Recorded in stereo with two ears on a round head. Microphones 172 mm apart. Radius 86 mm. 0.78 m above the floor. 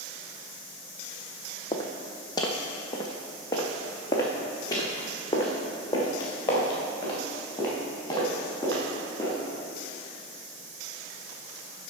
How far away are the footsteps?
About 1.3 m.